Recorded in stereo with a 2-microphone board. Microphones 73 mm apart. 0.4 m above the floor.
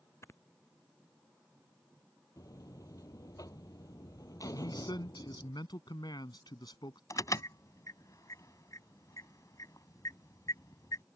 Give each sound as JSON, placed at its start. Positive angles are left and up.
{"t": 0.2, "sound": "snoring", "side_deg": 35}
{"t": 2.4, "sound": "a buzzer", "side_deg": 50}
{"t": 4.5, "sound": "a man speaking", "side_deg": 70}
{"t": 7.1, "sound": "an alarm", "side_deg": 45}